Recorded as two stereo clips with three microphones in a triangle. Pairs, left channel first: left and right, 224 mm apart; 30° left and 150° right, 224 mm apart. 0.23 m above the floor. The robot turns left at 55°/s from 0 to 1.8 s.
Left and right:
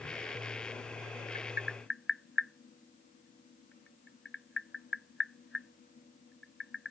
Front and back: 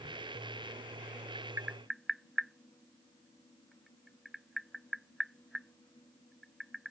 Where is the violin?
I don't hear a violin.